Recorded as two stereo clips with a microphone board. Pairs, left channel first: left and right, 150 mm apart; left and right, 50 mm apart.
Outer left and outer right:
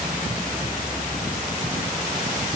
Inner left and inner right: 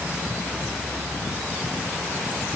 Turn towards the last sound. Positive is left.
No sound to turn to.